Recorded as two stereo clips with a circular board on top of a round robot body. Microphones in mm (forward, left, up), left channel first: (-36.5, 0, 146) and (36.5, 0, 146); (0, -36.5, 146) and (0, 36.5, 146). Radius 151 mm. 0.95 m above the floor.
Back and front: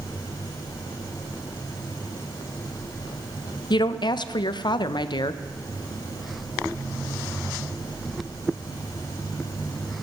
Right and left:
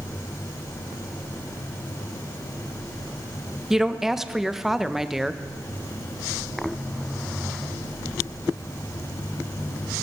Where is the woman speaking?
175° left, 0.7 m.